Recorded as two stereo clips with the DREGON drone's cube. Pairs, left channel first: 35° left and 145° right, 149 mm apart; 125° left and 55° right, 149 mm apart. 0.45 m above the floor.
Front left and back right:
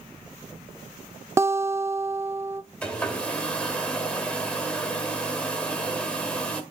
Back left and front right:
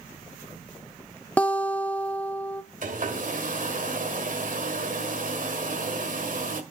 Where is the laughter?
No laughter in this recording.